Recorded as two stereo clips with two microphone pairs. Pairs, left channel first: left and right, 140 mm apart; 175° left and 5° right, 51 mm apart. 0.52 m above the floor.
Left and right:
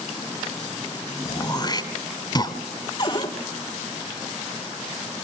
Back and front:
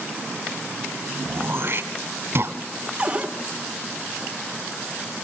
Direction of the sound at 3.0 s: 55° left.